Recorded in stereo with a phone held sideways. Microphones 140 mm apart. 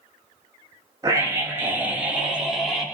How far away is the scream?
About 3 m.